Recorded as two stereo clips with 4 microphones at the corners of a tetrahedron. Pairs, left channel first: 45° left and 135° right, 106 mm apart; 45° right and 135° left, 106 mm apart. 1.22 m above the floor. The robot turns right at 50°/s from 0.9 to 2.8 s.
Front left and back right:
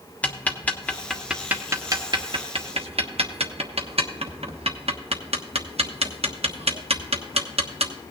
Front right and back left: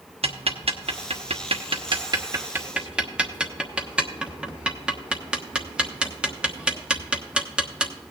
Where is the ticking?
120° left, 1.1 m; by 7.9 s 145° right, 1.1 m.